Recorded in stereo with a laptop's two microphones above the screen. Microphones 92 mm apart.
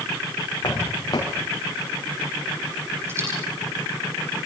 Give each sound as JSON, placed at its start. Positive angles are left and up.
{"t": 0.6, "sound": "footsteps", "side_deg": 45, "distance_m": 4.0}
{"t": 3.1, "sound": "a dropped coin", "side_deg": -25, "distance_m": 9.0}